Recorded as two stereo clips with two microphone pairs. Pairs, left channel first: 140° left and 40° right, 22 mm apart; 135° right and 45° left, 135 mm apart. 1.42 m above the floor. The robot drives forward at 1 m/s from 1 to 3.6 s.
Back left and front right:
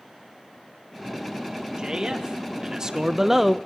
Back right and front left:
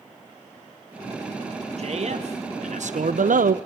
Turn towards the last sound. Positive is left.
turn(degrees=45)